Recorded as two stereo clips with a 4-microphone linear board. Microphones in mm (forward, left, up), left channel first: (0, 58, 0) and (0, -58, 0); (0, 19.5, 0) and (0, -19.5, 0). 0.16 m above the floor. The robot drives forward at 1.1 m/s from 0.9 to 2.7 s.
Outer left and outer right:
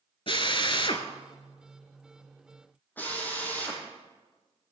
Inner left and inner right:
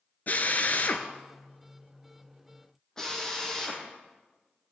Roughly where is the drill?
Left.